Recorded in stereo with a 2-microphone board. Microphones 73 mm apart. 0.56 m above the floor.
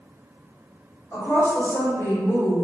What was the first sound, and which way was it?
A woman speaking, 40° left (ahead or behind).